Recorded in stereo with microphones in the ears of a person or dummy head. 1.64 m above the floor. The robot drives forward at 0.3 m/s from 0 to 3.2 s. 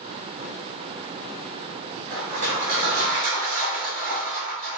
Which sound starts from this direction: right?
Crushing, at 2.1 s.